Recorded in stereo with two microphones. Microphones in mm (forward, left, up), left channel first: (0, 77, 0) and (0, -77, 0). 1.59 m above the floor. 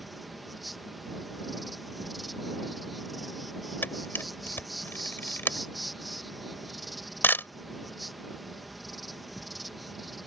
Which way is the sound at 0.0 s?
Centre (ahead or behind).